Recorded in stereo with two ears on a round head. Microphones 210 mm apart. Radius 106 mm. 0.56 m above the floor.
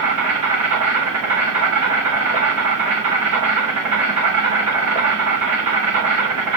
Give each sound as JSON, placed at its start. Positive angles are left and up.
{"t": 0.0, "sound": "an insect", "side_deg": -80, "distance_m": 5.0}